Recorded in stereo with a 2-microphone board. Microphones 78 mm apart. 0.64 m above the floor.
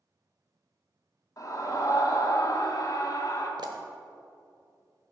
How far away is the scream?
About 1.5 m.